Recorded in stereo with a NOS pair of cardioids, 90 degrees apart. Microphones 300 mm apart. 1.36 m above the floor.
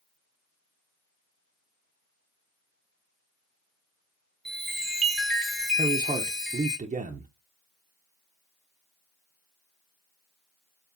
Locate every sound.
4.5 s a chime: straight ahead, 0.9 m
5.8 s a man speaking: 25° right, 0.6 m